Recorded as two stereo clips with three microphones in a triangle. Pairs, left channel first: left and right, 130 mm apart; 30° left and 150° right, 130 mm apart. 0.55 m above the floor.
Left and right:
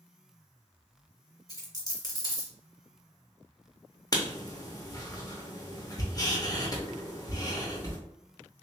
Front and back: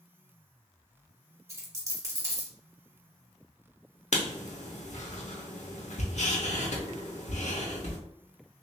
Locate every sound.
1.5 s a dropped coin: 150° left, 1.6 m
4.1 s writing: 35° left, 0.8 m